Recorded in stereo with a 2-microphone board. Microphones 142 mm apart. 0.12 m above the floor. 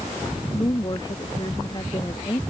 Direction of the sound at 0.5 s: 30° left (ahead or behind).